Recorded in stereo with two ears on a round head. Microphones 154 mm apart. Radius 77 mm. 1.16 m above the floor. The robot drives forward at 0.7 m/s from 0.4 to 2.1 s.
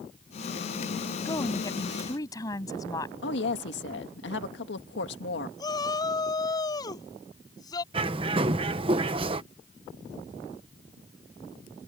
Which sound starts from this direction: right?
A bird, at 7.9 s.